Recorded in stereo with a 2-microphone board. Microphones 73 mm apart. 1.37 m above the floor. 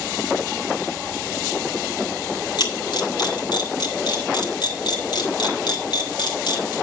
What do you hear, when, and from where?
2.6 s a camera shutter: 65° left (ahead or behind), 3 m